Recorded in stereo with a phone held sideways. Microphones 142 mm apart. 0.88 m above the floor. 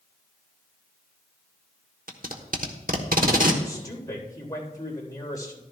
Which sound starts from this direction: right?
Tape being pulled, at 2.1 s.